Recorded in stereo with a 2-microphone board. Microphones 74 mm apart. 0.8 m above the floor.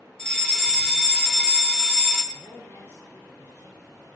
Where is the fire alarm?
5° left (ahead or behind), 1.5 m.